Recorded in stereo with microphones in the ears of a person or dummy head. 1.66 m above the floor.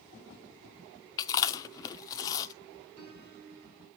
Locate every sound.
1.2 s chewing: 25° left (ahead or behind), 0.7 m
3.0 s a piano: 65° right (ahead or behind), 3 m